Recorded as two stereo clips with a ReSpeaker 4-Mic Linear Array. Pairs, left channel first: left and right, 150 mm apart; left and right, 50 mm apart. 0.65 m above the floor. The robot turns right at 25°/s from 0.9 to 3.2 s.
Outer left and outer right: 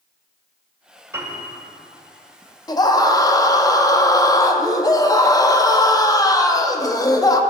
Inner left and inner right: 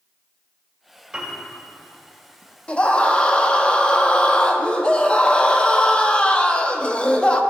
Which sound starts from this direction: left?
A scream, at 2.7 s.